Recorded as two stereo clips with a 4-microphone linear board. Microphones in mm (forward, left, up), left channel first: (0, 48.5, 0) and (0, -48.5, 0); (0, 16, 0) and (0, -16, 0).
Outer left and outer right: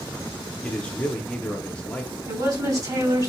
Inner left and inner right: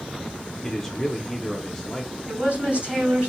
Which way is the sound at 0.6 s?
15° left (ahead or behind).